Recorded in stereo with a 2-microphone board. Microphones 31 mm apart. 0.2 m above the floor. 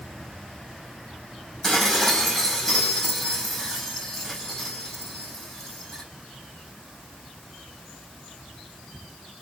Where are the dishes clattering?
15° left (ahead or behind), 6 m.